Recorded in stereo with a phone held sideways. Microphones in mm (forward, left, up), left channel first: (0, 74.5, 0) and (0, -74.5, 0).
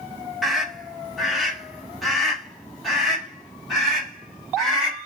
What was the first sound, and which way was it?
A scream, centre (ahead or behind).